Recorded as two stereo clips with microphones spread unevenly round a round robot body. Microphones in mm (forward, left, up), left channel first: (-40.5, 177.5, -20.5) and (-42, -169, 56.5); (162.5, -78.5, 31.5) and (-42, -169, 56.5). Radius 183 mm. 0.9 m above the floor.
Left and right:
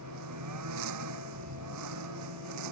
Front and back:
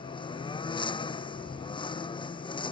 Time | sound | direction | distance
0.0 | a lawn mower | 45° right | ?